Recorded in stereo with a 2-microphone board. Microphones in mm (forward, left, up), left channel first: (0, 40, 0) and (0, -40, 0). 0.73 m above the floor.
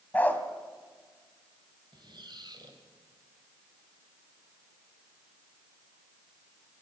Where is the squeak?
70° right (ahead or behind), 2 m.